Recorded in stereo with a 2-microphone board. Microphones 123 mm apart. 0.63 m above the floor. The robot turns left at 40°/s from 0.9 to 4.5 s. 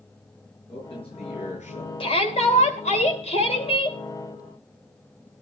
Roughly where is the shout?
Behind left.